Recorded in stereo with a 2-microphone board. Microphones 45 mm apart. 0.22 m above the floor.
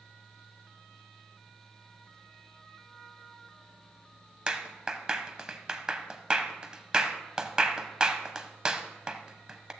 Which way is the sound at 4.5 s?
20° right (ahead or behind).